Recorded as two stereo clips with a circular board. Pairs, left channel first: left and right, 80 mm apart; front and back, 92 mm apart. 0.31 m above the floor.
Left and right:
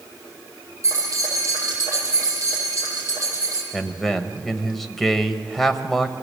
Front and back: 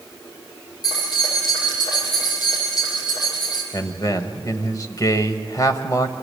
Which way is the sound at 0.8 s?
40° right.